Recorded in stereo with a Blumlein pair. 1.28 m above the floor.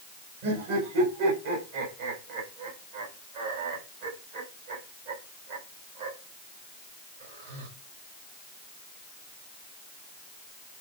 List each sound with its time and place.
0.4 s laughter: 50° right, 6.5 m